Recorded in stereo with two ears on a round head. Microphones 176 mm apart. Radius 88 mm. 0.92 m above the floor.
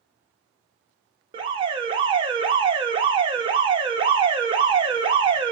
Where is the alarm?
25° right (ahead or behind), 1.1 m.